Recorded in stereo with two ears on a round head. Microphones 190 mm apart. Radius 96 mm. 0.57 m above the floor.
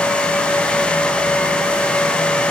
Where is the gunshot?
I don't hear a gunshot.